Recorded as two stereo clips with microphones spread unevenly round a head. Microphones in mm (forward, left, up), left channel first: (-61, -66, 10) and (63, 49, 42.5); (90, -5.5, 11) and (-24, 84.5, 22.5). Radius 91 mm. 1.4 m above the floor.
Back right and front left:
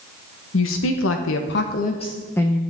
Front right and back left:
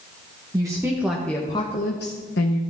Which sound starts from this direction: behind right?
A woman speaking, at 0.5 s.